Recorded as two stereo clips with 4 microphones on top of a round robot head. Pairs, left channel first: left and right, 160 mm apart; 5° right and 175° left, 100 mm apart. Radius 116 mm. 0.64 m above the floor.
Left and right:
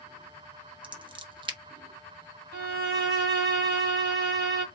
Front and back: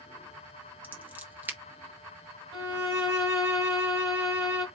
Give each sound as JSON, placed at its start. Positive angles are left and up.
{"t": 0.8, "sound": "scissors", "azimuth_deg": -120, "distance_m": 1.3}
{"t": 2.5, "sound": "a violin", "azimuth_deg": -110, "distance_m": 1.8}